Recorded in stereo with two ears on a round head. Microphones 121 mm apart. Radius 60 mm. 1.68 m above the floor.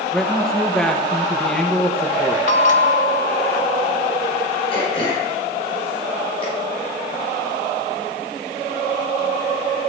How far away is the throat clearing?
About 6.5 m.